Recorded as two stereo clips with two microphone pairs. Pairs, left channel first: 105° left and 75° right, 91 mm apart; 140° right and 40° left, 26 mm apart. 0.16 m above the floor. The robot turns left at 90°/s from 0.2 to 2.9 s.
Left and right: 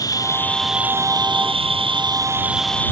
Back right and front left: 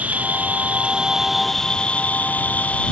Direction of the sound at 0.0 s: 55° left.